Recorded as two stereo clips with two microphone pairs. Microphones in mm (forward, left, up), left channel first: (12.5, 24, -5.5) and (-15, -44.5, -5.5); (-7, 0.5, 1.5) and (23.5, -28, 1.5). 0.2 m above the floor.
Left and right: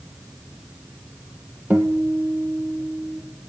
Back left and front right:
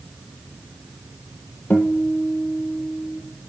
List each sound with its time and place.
1.7 s a guitar: 175° right, 1.7 m